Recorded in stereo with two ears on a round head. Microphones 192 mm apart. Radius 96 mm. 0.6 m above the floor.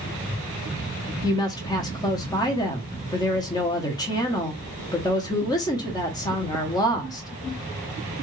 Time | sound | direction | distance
1.2 | a woman speaking | 20° left (ahead or behind) | 0.8 m